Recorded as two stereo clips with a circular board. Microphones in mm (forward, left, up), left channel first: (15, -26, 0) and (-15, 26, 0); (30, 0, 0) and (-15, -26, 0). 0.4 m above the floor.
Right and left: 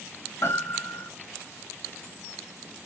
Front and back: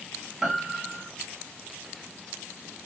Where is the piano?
70° right, 1.2 m.